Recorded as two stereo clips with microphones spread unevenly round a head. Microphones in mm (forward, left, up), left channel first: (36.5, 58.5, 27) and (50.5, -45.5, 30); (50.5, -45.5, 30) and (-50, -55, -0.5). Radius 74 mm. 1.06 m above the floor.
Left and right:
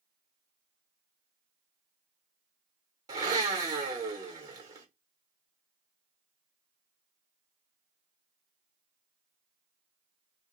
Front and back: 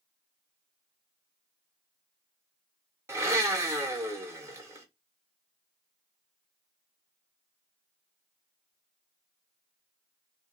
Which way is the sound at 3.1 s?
135° right.